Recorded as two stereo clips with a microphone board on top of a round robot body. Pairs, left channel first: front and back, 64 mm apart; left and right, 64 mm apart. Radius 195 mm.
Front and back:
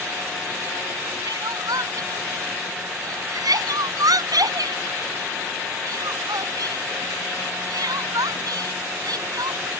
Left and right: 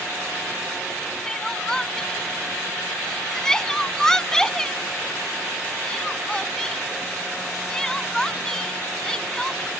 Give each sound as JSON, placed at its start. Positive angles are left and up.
{"t": 1.2, "sound": "crying", "azimuth_deg": 170}